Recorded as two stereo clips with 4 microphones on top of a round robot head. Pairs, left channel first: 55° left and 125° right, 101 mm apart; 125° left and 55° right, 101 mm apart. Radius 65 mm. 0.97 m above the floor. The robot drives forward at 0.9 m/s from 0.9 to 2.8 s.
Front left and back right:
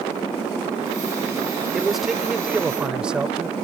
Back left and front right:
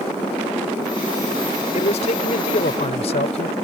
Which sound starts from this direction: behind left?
A man speaking, at 1.7 s.